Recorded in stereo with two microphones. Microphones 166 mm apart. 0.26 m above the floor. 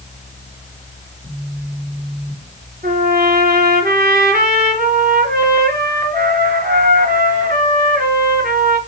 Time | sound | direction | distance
1.2 | a phone buzzing | 60° right (ahead or behind) | 5 m
2.8 | a trumpet | 60° right (ahead or behind) | 4 m